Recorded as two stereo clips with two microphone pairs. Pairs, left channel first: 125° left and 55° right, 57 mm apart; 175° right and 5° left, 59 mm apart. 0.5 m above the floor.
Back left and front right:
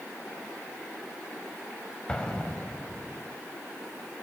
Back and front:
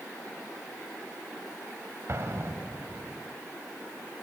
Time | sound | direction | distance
2.1 | an explosion | 50° left | 3.5 m